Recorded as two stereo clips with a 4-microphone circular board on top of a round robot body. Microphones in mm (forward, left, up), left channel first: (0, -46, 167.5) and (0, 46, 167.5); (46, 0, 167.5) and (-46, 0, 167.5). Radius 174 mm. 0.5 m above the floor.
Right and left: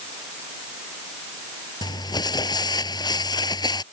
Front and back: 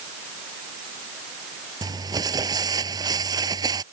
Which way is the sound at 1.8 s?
135° right.